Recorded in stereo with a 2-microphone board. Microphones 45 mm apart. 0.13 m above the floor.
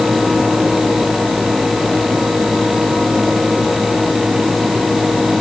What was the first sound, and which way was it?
Only background noise.